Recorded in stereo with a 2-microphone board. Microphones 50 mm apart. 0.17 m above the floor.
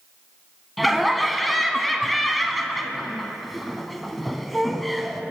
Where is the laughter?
Centre (ahead or behind), 1.1 m.